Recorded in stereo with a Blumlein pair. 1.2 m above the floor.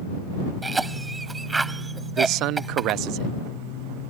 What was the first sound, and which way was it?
A cough, 10° right.